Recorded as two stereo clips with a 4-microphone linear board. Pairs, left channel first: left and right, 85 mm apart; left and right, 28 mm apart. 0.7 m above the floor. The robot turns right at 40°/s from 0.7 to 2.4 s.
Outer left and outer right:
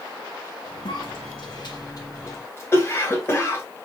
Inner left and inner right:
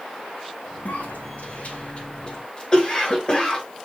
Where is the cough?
80° left, 2 m; by 3.6 s 30° left (ahead or behind), 2 m.